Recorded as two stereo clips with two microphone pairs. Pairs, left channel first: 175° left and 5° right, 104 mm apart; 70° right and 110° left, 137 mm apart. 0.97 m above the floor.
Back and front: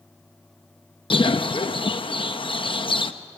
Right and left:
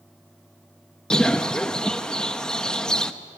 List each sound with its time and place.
1.1 s a bird: 150° right, 0.8 m